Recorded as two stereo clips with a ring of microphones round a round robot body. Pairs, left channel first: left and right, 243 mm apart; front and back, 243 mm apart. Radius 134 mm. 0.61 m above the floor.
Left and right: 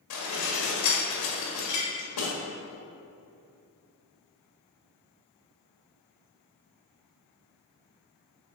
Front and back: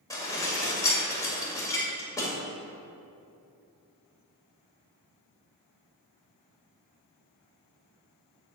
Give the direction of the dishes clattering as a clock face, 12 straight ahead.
9 o'clock.